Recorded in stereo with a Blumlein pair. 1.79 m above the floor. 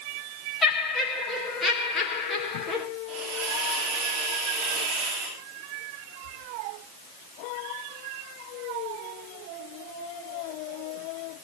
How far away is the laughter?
About 3.5 m.